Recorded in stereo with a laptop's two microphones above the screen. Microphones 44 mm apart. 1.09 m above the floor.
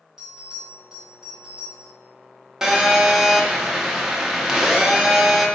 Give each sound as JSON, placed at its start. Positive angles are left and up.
{"t": 0.2, "sound": "a bell", "side_deg": -15, "distance_m": 1.6}
{"t": 2.6, "sound": "a phone buzzing", "side_deg": -15, "distance_m": 0.6}